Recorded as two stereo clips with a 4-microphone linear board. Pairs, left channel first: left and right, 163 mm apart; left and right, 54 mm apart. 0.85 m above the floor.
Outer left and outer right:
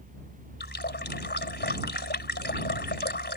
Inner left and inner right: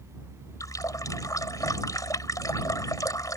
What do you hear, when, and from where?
0.6 s a running tap: 85° left